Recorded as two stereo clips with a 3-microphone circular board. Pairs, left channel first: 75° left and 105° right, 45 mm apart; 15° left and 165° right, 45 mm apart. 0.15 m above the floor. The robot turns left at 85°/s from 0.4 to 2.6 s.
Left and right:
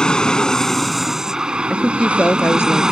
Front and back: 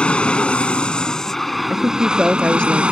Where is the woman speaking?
155° left; by 2.8 s 80° left.